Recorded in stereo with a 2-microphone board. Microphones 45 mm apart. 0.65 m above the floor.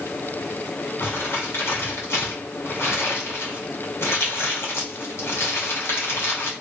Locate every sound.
1.0 s crumpling: 80° left, 2 m